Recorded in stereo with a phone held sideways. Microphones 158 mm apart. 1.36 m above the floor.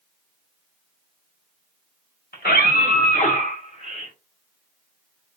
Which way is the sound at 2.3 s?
75° left (ahead or behind).